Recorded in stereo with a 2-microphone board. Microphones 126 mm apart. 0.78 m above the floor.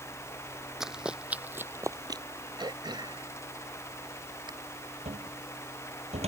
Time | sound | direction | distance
0.8 | running footsteps | 5° right (ahead or behind) | ?
2.6 | throat clearing | 35° right (ahead or behind) | ?
5.0 | a cupboard door | 55° right (ahead or behind) | ?